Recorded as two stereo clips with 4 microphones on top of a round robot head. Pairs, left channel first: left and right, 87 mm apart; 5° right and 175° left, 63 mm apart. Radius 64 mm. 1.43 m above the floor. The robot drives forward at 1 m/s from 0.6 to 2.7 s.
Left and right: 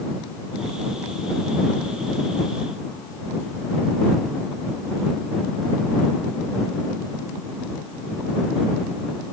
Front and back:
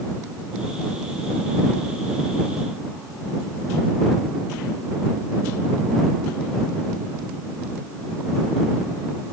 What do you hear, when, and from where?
Only background noise.